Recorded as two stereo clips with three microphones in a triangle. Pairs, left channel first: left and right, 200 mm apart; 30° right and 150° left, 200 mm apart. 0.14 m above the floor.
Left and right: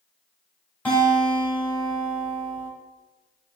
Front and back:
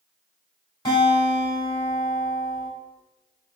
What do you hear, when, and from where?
0.8 s a guitar: 15° left, 1.4 m